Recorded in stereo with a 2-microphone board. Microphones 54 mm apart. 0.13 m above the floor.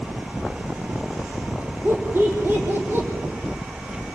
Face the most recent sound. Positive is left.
turn(degrees=-35)  # may be behind; listen again after turning